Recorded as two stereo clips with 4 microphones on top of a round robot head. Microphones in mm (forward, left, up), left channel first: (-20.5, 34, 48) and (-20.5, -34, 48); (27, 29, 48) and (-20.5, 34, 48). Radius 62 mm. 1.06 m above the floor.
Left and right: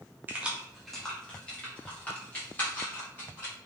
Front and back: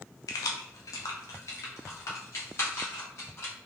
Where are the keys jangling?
25° right, 0.6 m; by 3.5 s 25° left, 2.5 m.